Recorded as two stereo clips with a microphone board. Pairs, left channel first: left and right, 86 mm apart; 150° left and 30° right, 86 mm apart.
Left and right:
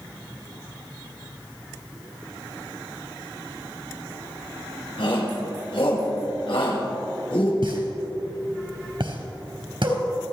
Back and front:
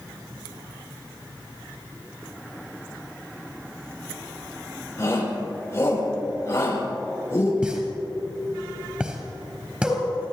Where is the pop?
105° right, 3.5 m.